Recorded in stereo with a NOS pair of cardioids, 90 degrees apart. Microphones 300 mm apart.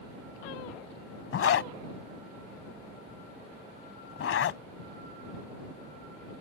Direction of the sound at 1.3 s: 55° left.